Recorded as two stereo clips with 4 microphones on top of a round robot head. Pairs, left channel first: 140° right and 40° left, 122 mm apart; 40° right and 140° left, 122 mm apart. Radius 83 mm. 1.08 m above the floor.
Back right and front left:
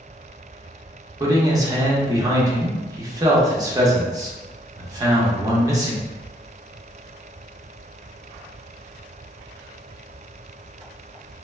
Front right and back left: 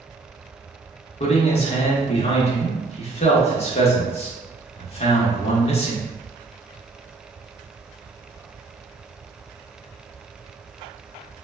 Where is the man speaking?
15° right, 0.9 m.